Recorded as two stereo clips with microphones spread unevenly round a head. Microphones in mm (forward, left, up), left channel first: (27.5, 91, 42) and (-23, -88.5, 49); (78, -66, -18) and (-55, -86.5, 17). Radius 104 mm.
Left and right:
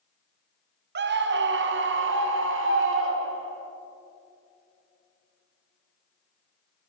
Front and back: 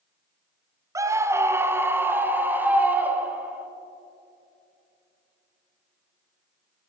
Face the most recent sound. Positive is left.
turn(degrees=-90)